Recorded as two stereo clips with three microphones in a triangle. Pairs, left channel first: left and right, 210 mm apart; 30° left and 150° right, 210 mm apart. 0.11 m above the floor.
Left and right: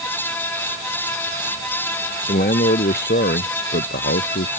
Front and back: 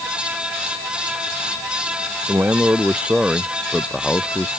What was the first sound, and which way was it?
A man speaking, 130° left.